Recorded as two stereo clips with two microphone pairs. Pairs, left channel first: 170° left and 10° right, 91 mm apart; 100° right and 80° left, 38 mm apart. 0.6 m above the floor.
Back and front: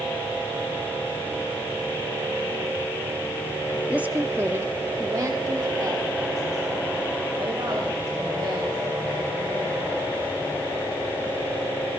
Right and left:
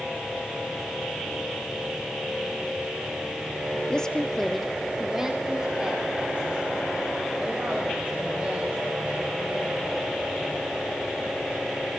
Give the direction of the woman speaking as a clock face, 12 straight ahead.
2 o'clock.